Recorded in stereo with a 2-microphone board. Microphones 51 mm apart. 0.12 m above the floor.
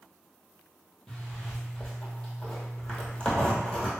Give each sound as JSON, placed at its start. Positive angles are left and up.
{"t": 1.1, "sound": "a zipper", "side_deg": 15, "distance_m": 1.0}